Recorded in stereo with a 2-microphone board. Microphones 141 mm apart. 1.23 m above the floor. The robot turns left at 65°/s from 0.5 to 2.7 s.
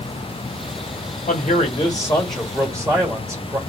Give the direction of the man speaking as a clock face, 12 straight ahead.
10 o'clock.